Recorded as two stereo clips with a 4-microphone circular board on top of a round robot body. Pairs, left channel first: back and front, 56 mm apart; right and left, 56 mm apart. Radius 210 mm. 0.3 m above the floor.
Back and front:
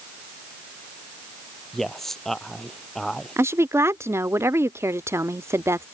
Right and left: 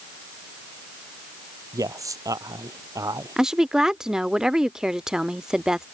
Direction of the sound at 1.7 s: 95° left.